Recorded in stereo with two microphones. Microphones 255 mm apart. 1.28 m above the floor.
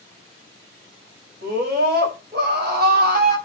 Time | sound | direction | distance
1.4 | a scream | 40° right (ahead or behind) | 7 m